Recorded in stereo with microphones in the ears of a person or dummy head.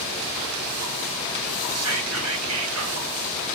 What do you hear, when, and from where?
1.8 s whispering: 85° right, 1.0 m